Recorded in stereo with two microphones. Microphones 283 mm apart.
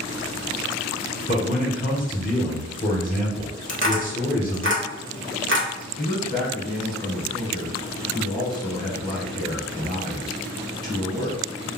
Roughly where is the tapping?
Right.